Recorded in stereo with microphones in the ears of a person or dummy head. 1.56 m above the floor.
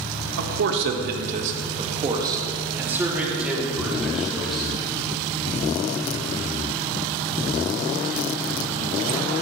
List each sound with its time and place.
0.4 s a man speaking: 70° right (ahead or behind), 1.4 m; by 4.7 s centre (ahead or behind), 4 m